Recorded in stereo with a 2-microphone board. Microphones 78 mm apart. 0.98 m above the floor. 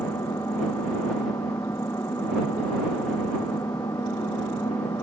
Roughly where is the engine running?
Left.